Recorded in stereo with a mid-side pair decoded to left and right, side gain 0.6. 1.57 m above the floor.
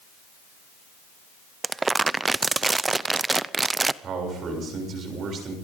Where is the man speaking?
45° right, 7 m.